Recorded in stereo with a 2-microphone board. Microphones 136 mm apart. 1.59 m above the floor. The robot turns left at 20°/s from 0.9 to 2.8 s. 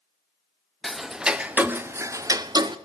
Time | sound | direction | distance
0.8 | ticking | straight ahead | 0.6 m